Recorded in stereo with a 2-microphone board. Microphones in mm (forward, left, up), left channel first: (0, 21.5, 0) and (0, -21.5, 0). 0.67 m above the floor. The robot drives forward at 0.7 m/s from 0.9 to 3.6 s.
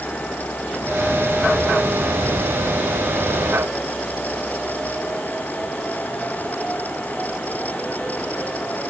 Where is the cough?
I don't hear a cough.